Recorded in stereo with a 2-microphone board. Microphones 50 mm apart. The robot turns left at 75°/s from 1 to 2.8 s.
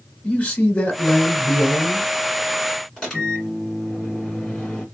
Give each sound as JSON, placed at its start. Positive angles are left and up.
{"t": 0.2, "sound": "a man speaking", "azimuth_deg": 130, "distance_m": 1.6}
{"t": 3.0, "sound": "a microwave", "side_deg": 10, "distance_m": 1.9}